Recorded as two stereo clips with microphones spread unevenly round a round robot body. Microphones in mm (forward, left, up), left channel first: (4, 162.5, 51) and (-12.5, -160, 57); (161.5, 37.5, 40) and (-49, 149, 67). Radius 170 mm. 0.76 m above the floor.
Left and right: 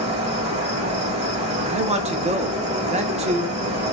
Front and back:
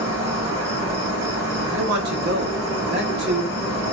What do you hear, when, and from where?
0.0 s an insect: 150° right, 2 m
1.6 s a man speaking: 160° right, 0.6 m